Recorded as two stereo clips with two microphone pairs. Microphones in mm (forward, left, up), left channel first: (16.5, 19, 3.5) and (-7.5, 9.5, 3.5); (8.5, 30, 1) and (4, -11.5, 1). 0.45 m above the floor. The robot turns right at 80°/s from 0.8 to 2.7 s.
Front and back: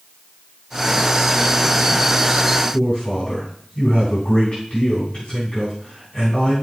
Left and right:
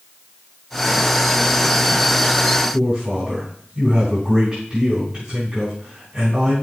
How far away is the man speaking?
About 3.5 m.